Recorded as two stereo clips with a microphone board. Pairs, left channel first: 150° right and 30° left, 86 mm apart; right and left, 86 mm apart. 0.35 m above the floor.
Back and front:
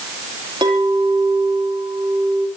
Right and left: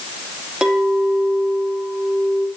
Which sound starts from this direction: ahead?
A clink, at 0.6 s.